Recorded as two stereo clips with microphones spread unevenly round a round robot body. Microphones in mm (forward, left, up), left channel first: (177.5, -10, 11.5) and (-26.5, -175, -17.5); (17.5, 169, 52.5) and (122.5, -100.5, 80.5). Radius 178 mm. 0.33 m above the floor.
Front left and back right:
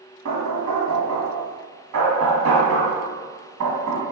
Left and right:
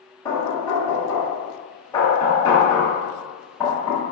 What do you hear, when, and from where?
0.2 s knocking: 170° right, 2 m